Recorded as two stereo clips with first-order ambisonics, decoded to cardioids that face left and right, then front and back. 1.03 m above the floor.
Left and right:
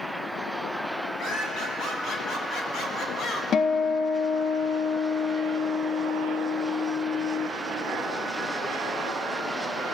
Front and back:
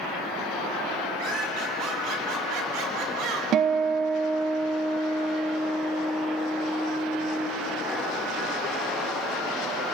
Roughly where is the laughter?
Behind left.